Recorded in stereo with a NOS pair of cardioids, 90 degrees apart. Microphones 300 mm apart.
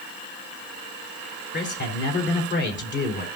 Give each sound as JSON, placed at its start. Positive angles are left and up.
{"t": 1.5, "sound": "a man speaking", "azimuth_deg": 40, "distance_m": 4.0}